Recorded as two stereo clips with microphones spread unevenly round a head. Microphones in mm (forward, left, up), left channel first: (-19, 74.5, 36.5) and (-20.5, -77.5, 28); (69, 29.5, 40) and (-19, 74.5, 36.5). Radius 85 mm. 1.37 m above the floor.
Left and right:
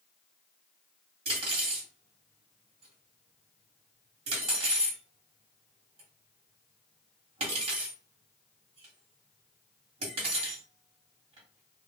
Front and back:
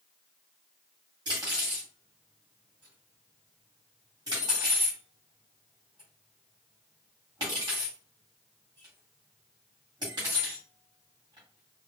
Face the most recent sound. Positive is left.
turn(degrees=-140)